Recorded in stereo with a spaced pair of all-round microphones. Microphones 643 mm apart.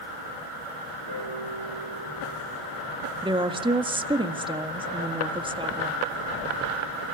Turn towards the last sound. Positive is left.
turn(degrees=-5)  # may be behind; listen again after turning